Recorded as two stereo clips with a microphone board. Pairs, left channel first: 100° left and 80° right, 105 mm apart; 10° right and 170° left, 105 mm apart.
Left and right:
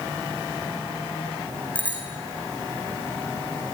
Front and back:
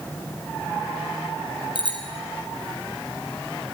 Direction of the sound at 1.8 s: 25° left.